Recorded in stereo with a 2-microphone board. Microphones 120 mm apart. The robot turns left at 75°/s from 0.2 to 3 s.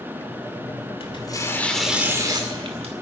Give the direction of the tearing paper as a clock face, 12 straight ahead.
10 o'clock.